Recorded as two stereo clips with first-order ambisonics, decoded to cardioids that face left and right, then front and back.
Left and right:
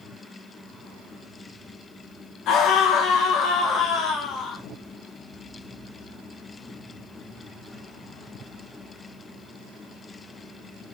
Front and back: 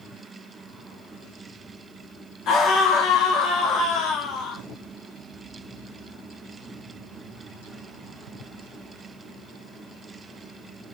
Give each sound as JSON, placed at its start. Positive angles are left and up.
{"t": 2.5, "sound": "a scream", "azimuth_deg": 50, "distance_m": 1.5}